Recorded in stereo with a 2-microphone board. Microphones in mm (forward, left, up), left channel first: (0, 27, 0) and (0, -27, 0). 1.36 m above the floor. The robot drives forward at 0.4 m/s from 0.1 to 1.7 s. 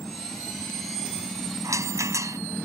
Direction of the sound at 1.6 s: 75° right (ahead or behind).